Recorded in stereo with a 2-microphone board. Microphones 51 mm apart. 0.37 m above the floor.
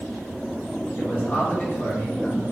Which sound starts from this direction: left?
A man speaking, at 1.0 s.